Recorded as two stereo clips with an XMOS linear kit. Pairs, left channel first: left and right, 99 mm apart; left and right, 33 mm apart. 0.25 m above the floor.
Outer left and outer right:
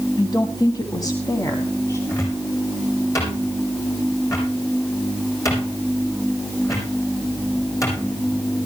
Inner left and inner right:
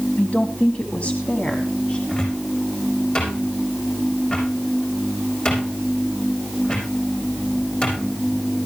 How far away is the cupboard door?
About 8.5 m.